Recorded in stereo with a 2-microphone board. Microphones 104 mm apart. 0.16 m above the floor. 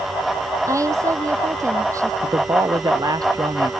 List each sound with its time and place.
0.7 s a woman speaking: 30° right (ahead or behind)
2.2 s a man speaking: 40° right (ahead or behind)